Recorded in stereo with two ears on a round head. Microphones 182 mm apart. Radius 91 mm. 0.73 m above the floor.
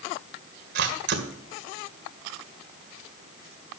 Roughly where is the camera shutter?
Right.